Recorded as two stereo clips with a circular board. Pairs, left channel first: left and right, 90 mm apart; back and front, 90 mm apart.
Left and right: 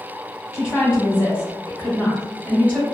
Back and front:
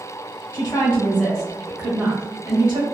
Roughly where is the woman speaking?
Behind left.